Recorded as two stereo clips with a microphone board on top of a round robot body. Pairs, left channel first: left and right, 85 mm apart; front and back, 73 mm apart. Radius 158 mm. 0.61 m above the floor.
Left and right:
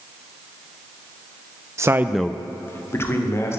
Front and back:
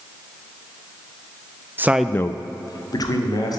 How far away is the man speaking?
About 0.7 m.